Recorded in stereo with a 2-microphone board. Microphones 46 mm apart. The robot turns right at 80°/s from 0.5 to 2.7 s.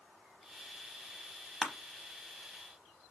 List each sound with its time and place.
1.6 s crushing: 15° right (ahead or behind), 0.6 m; by 1.7 s 10° right (ahead or behind), 0.6 m